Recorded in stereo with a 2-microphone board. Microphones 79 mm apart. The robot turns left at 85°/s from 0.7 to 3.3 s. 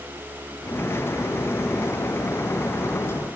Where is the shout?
No shout in this recording.